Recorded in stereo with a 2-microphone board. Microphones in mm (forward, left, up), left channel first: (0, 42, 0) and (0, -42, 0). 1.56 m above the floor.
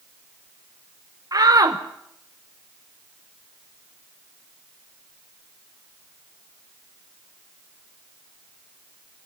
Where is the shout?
50° right (ahead or behind), 0.9 m.